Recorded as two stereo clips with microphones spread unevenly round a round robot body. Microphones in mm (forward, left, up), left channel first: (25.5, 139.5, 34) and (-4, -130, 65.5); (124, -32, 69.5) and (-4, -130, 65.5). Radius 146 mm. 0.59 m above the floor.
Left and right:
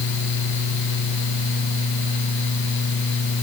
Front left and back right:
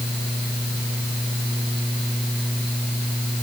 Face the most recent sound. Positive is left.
No sound to turn to.